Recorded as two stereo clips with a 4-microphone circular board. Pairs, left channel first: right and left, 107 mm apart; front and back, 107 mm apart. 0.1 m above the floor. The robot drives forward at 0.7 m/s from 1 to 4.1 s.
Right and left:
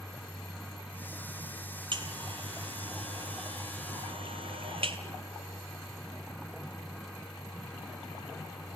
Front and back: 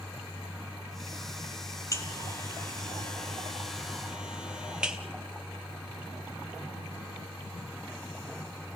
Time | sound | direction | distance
1.9 | a buzzer | 55° left | 2.5 m